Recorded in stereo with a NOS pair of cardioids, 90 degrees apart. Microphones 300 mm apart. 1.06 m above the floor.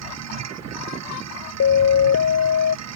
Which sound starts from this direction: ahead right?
A machine running, at 0.0 s.